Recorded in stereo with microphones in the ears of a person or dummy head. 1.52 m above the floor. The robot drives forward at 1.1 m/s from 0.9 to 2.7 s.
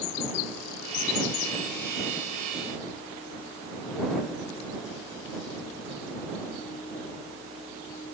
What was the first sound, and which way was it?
Only background noise.